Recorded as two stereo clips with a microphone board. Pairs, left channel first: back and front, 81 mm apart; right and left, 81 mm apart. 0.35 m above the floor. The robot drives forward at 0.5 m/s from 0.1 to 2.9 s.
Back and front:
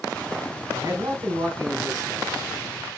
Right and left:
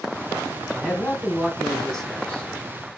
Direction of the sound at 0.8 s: 10° right.